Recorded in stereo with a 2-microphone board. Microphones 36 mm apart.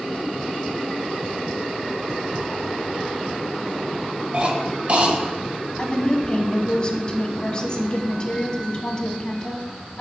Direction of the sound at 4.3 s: 40° right (ahead or behind).